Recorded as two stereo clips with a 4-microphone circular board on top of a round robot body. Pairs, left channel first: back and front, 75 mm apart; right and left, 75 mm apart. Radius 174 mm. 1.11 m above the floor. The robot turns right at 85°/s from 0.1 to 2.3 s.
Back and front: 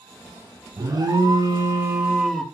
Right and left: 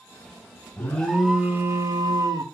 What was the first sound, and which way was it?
An alarm, 35° right.